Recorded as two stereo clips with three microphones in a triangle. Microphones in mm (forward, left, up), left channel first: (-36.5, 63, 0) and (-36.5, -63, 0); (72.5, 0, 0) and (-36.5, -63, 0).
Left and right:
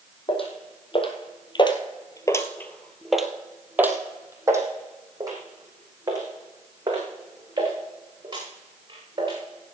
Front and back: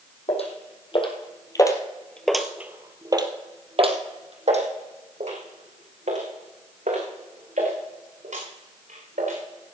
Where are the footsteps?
55° left, 2.5 m; by 9.4 s 145° right, 7.5 m.